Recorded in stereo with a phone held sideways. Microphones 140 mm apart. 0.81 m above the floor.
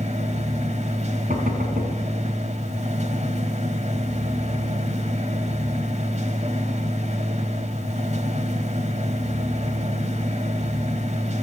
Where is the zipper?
No zipper in this recording.